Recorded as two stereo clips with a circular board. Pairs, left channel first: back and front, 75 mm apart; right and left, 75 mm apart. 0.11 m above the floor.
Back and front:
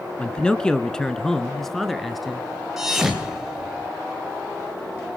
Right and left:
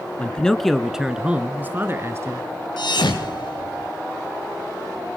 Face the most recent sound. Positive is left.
turn(degrees=-85)